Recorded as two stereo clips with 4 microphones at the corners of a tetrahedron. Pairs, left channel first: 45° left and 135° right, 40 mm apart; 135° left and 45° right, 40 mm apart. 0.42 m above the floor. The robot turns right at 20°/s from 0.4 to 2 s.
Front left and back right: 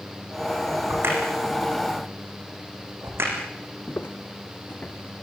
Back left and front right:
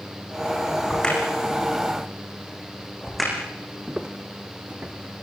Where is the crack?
155° right, 6.5 m; by 3.3 s 135° right, 6.5 m.